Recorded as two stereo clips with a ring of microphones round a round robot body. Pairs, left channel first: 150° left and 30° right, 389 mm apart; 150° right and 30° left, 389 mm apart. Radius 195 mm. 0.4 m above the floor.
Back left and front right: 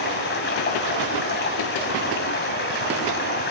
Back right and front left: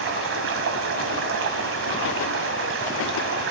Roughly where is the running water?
Left.